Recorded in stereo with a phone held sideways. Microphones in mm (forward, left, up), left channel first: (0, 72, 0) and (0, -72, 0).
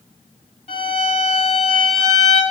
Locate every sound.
0.7 s a violin: 45° left (ahead or behind), 1.9 m